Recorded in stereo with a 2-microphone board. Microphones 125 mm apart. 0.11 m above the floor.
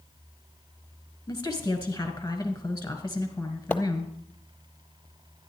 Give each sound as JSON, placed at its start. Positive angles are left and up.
{"t": 1.3, "sound": "a woman speaking", "side_deg": 20, "distance_m": 1.4}
{"t": 3.7, "sound": "a splash", "side_deg": 10, "distance_m": 0.8}